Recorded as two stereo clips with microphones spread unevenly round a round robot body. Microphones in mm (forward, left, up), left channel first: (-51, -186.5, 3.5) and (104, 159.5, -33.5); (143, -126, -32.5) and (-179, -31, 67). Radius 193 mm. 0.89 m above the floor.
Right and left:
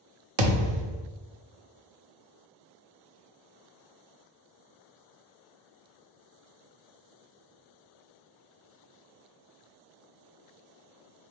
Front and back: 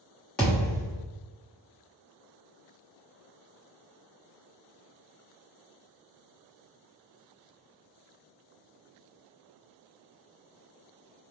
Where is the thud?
75° left, 0.8 m.